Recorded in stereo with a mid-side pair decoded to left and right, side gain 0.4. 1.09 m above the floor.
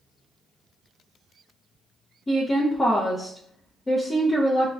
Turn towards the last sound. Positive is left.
turn(degrees=30)